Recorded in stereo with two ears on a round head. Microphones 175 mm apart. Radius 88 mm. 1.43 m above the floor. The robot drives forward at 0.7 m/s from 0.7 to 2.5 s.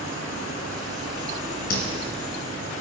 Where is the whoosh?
50° left (ahead or behind), 3.5 m.